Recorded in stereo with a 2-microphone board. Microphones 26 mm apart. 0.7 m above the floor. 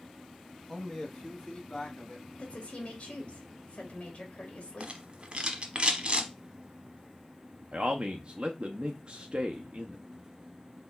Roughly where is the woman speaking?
Left.